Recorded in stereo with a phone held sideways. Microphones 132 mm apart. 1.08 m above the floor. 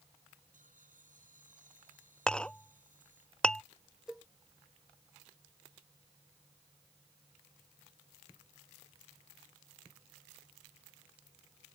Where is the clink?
5° left (ahead or behind).